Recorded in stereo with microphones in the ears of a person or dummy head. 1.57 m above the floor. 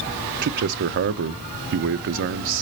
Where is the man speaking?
55° right (ahead or behind), 0.5 m.